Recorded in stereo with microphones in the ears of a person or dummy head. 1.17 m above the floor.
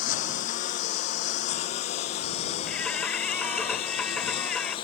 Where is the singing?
5° left (ahead or behind).